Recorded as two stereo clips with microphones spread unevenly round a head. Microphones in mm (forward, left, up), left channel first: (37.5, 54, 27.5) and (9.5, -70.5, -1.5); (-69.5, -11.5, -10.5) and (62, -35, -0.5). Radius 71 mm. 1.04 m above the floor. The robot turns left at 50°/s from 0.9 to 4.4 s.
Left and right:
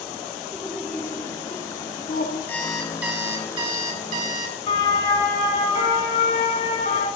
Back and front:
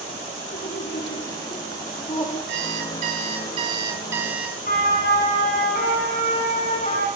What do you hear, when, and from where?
0.5 s laughter: 165° left, 3 m; by 2.4 s 90° left, 3 m
2.5 s an alarm clock: straight ahead, 4 m; by 4.6 s 95° right, 4 m
4.7 s a siren: 135° left, 8 m; by 7.1 s 120° left, 7.5 m